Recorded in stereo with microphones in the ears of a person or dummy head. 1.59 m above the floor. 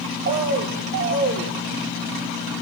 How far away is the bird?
About 0.8 m.